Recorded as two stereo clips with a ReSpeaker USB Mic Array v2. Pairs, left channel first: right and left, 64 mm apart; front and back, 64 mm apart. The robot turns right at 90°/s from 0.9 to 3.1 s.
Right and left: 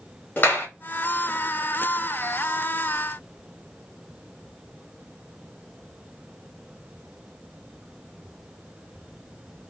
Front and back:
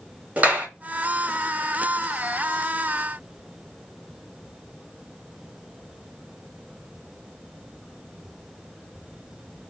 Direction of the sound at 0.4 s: 130° right.